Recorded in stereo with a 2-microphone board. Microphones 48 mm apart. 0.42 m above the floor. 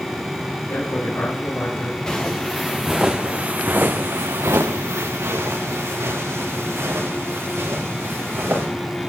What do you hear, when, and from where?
0.7 s a man speaking: 75° left (ahead or behind), 6 m
2.1 s footsteps: 15° left (ahead or behind), 2.5 m; by 8.7 s 60° right (ahead or behind), 6 m